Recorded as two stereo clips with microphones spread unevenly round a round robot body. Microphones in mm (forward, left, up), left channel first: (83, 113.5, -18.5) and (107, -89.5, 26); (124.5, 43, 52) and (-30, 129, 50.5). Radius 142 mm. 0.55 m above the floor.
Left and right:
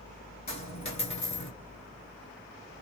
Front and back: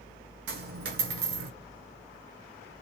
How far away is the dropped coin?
About 0.7 m.